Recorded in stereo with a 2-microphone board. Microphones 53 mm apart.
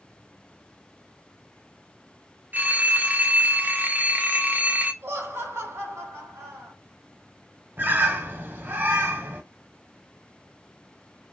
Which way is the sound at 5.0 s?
50° right (ahead or behind).